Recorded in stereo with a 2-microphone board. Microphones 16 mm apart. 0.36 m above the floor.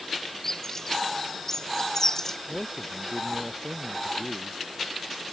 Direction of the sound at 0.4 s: 35° left (ahead or behind).